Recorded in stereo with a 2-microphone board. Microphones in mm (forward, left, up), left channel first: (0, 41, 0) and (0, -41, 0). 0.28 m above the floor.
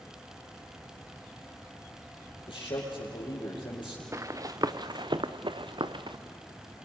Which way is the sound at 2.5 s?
75° left (ahead or behind).